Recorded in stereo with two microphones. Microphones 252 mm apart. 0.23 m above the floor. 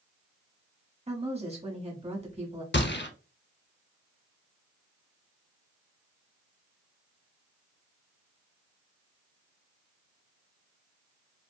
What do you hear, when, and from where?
1.1 s a woman speaking: 25° right (ahead or behind), 1.3 m
2.7 s a gunshot: 45° left (ahead or behind), 0.6 m